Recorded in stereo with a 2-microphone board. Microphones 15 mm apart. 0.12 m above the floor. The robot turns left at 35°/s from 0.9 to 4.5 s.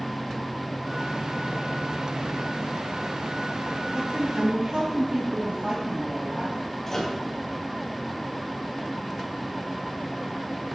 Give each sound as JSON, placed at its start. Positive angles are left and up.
{"t": 3.9, "sound": "a woman speaking", "side_deg": -50, "distance_m": 3.5}
{"t": 6.9, "sound": "a microwave", "side_deg": 25, "distance_m": 2.5}